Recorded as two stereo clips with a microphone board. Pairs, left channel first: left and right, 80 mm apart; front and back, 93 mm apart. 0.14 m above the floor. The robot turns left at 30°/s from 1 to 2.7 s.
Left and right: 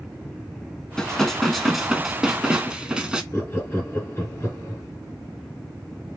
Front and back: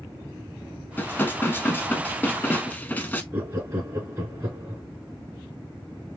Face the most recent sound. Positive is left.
turn(degrees=135)